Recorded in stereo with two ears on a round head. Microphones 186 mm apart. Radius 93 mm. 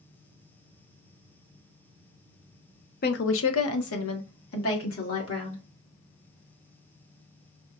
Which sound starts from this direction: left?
A woman speaking, at 3.0 s.